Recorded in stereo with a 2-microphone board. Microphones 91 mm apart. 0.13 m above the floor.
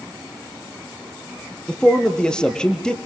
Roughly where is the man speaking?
Centre.